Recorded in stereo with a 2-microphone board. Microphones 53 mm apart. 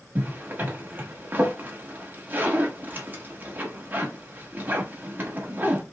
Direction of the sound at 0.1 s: 35° right (ahead or behind).